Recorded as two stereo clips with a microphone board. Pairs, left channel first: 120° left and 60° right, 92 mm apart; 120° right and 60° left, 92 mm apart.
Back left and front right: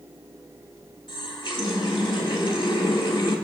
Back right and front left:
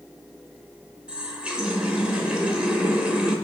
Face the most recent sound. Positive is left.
turn(degrees=140)